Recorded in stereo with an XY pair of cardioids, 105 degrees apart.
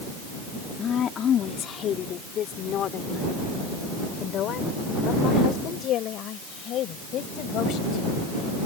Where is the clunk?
I don't hear a clunk.